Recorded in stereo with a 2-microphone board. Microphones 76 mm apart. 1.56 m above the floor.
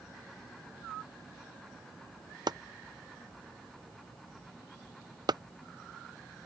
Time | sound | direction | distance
2.5 | chopping | 65° right (ahead or behind) | ?